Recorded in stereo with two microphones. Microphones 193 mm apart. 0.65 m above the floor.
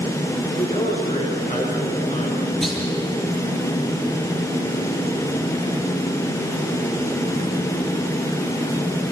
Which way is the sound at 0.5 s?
35° left (ahead or behind).